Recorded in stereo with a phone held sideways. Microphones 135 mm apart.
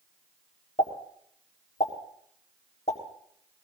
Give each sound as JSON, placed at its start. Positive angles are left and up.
{"t": 0.8, "sound": "a pop", "side_deg": 55, "distance_m": 4.0}